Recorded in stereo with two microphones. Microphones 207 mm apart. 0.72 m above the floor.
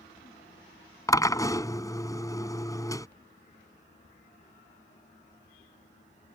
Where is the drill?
15° left (ahead or behind).